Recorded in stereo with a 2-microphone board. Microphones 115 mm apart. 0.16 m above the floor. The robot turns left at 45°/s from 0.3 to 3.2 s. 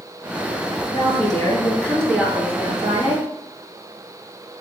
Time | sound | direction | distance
0.9 | a woman speaking | 55° left | 2.5 m